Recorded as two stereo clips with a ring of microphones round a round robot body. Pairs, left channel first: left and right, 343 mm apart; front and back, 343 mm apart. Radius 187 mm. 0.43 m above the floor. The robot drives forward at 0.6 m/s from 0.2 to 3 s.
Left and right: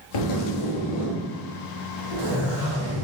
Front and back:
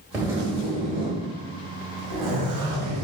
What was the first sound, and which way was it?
A zipper, 95° left.